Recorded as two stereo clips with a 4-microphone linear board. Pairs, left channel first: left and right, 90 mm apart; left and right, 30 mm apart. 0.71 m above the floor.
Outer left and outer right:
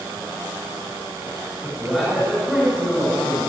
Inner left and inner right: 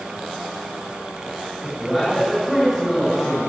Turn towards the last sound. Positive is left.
turn(degrees=0)  # may be behind; listen again after turning